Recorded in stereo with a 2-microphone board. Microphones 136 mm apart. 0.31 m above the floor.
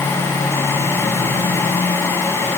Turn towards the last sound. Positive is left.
No sound to turn to.